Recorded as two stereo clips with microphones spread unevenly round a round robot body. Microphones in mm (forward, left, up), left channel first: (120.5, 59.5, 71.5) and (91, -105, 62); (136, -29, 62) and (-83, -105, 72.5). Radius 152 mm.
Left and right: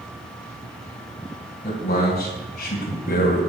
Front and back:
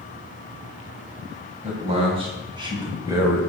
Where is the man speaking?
135° left, 4 m; by 3.5 s 115° left, 3 m.